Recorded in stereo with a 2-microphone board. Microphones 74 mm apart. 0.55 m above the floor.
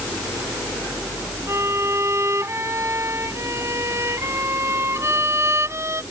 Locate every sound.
1.5 s a violin: 40° right (ahead or behind)